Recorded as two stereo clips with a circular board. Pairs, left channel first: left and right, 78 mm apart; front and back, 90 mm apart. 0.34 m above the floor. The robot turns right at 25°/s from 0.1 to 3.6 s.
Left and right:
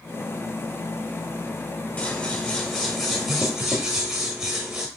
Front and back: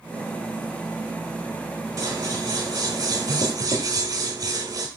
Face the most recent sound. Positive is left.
turn(degrees=-170)